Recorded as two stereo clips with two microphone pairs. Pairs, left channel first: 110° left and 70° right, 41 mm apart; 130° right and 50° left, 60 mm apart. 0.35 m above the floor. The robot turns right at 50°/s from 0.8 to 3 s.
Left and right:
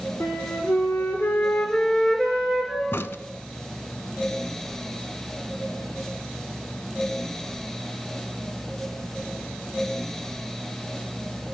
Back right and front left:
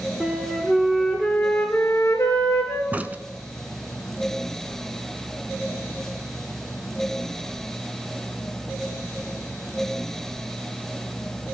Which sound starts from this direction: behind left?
A flute, at 0.2 s.